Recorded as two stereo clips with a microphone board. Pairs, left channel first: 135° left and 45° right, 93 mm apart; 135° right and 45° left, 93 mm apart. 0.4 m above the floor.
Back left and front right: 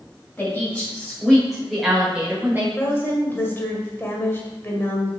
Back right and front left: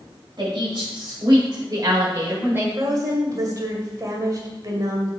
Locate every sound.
0.4 s a woman speaking: 65° left, 2 m; by 2.7 s straight ahead, 1.3 m
2.8 s a woman speaking: 75° left, 1.8 m